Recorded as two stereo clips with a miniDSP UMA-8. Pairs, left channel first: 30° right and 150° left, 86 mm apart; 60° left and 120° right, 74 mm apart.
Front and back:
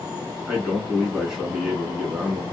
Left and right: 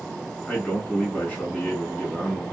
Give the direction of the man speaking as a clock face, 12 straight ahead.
9 o'clock.